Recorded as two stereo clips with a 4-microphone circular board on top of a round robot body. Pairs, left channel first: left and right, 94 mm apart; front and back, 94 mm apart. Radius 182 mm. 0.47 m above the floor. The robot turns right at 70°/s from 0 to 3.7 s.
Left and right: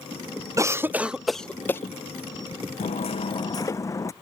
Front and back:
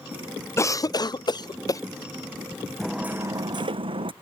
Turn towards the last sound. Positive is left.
turn(degrees=150)